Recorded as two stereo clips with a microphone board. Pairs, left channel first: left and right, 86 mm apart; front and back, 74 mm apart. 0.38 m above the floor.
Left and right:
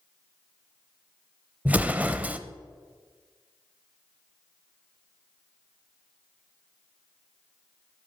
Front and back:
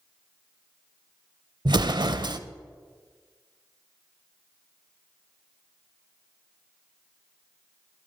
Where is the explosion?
160° right, 0.5 m.